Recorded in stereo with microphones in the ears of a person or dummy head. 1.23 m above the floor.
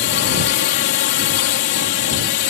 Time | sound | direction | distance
0.0 | a drone | 55° left (ahead or behind) | ?